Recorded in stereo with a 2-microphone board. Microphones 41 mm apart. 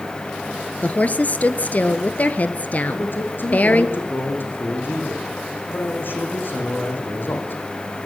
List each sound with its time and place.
0.8 s a woman speaking: 40° left (ahead or behind), 1.7 m
2.9 s a man speaking: 60° left (ahead or behind), 6 m